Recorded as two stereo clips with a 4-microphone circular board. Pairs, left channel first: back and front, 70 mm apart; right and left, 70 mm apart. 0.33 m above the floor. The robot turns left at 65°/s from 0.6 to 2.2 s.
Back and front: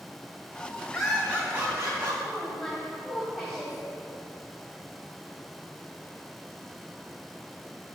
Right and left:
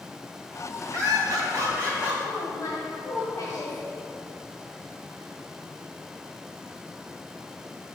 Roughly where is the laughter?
Left.